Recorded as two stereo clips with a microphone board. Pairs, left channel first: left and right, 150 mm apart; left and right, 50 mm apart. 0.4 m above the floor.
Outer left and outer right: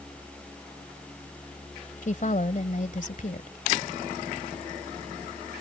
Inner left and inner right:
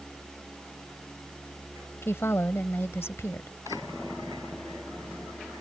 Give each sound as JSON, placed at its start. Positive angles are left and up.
{"t": 2.0, "sound": "a woman speaking", "side_deg": 60}